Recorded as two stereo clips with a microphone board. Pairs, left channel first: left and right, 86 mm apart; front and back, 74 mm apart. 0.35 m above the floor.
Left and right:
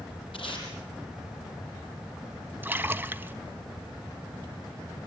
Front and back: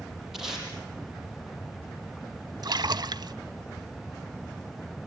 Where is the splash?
155° right, 0.5 m.